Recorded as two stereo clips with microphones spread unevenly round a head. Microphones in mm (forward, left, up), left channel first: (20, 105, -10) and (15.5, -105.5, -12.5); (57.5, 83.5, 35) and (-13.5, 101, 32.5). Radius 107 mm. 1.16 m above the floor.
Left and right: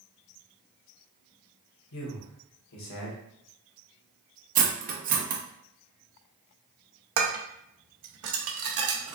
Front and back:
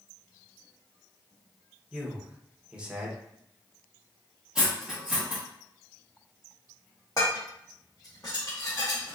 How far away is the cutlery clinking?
About 0.6 m.